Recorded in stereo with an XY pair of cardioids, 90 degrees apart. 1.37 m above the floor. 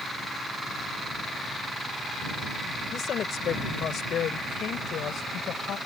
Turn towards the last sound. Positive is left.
turn(degrees=75)